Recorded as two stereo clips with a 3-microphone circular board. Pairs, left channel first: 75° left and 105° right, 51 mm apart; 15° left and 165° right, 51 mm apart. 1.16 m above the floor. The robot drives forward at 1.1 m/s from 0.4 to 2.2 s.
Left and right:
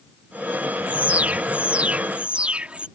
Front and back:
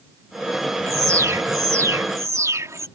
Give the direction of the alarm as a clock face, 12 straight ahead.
5 o'clock.